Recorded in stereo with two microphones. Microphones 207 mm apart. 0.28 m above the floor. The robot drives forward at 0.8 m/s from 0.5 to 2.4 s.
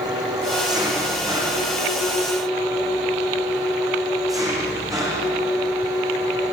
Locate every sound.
0.0 s an engine running: 20° right (ahead or behind), 8 m; by 6.5 s 15° right (ahead or behind), 9.5 m